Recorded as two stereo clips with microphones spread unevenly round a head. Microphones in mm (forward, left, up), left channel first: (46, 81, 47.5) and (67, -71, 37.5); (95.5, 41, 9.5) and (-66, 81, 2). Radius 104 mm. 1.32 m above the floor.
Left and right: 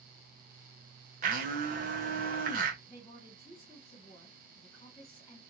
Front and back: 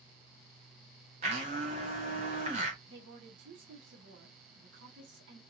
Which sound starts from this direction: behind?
A woman speaking, at 2.9 s.